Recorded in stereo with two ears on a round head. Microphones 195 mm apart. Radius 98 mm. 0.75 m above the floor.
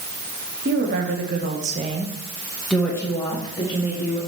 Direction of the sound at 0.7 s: 45° right (ahead or behind).